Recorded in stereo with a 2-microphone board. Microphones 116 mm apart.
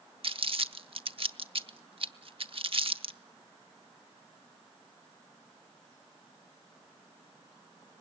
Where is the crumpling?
55° right (ahead or behind), 1.0 m.